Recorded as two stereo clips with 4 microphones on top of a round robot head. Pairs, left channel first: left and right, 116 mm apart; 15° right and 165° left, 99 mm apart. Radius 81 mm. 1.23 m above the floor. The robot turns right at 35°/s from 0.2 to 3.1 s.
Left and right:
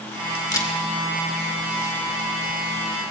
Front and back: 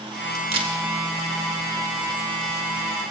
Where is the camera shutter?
145° left, 2 m; by 0.8 s 155° left, 2 m.